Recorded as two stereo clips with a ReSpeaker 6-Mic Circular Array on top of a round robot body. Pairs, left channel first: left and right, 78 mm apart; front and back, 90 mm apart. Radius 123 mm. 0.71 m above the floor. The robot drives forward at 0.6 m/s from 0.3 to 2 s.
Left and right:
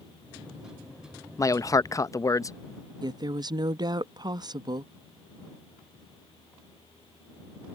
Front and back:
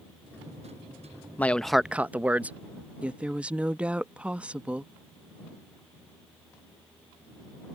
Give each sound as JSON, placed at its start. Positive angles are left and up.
{"t": 1.4, "sound": "a man speaking", "azimuth_deg": 65}
{"t": 3.0, "sound": "a woman speaking", "azimuth_deg": -105}